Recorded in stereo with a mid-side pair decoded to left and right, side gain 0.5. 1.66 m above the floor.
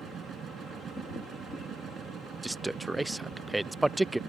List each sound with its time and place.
0.0 s a machine running: 50° right
2.4 s a man speaking: 10° right